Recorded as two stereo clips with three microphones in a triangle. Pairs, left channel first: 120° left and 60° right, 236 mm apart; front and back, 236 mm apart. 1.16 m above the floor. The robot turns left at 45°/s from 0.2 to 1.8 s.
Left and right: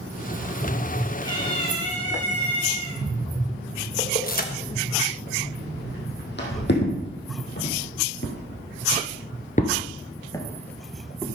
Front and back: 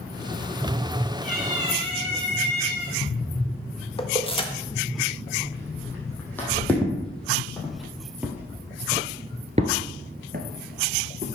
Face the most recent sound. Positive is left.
turn(degrees=-145)